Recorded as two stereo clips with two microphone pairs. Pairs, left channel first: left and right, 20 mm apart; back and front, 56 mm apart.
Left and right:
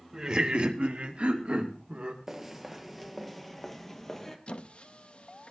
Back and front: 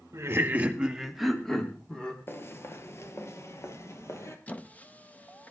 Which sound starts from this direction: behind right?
Footsteps, at 2.3 s.